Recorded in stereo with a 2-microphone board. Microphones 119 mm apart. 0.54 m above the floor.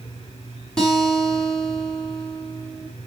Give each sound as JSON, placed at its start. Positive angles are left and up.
{"t": 0.8, "sound": "a guitar", "side_deg": 5, "distance_m": 4.5}